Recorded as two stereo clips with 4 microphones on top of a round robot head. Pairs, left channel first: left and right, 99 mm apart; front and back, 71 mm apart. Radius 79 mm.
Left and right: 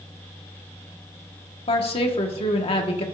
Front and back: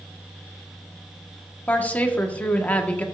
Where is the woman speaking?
70° left, 1.6 m.